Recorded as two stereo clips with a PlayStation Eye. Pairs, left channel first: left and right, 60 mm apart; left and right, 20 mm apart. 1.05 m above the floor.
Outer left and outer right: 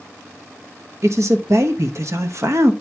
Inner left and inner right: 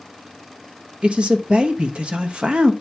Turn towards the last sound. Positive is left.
turn(degrees=-60)  # may be behind; listen again after turning